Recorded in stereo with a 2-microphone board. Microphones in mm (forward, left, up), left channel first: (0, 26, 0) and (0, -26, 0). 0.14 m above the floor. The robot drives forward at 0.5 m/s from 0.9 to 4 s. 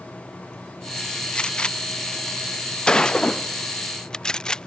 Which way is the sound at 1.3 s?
20° left (ahead or behind).